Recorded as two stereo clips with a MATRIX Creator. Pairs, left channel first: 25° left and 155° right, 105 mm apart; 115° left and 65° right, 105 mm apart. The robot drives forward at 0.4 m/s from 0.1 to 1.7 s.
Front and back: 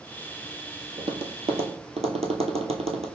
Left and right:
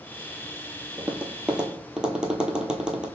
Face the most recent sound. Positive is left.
turn(degrees=-150)